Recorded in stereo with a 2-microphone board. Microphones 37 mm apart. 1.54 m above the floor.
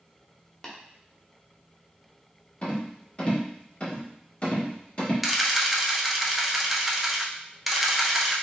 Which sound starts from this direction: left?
A rattle, at 2.6 s.